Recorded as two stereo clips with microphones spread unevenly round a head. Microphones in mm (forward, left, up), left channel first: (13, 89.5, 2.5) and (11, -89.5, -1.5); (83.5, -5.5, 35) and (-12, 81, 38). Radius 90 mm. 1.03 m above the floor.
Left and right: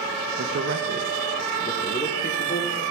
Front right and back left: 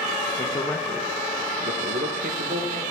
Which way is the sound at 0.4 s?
95° right.